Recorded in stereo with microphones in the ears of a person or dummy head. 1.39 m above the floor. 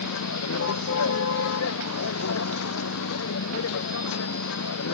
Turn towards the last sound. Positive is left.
turn(degrees=70)  # may be behind; listen again after turning